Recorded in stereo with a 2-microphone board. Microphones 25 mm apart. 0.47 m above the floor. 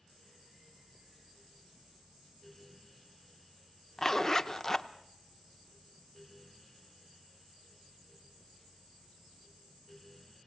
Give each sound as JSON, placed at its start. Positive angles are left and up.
{"t": 4.0, "sound": "a zipper", "side_deg": 20, "distance_m": 0.8}